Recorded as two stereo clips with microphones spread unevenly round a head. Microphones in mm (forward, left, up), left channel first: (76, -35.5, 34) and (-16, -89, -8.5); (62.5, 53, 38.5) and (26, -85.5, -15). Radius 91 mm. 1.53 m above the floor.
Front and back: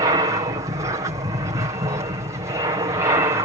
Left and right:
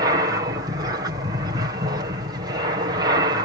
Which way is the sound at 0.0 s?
140° right.